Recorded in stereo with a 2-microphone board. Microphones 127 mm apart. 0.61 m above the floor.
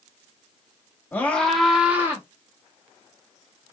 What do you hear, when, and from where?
1.1 s a scream: 15° left (ahead or behind), 1.3 m; by 2.2 s 20° right (ahead or behind), 1.3 m